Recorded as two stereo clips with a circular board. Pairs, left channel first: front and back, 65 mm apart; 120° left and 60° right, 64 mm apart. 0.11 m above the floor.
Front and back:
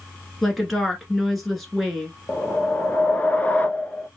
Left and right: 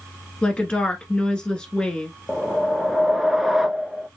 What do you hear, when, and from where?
0.4 s a woman speaking: 85° left, 1.3 m
2.3 s a whoosh: 20° left, 0.6 m